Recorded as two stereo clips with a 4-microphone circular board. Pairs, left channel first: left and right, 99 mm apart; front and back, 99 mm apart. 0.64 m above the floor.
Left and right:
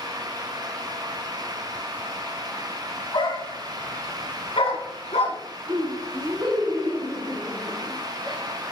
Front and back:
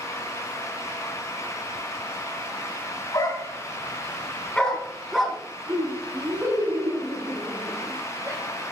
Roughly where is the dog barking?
Ahead left.